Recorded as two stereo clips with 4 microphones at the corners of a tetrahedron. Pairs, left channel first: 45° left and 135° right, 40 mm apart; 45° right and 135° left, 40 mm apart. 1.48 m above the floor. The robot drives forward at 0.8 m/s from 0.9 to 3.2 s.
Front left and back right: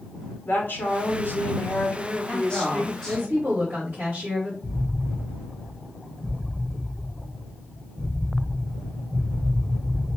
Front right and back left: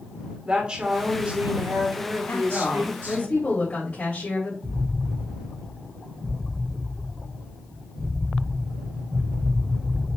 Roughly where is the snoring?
No snoring in this recording.